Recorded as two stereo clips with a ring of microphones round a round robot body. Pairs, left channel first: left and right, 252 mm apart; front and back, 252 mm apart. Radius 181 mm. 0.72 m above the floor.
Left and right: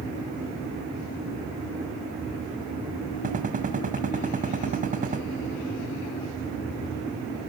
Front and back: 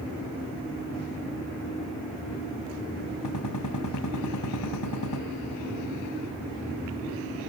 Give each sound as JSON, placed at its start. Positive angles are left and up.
{"t": 3.2, "sound": "a gunshot", "azimuth_deg": -30, "distance_m": 3.0}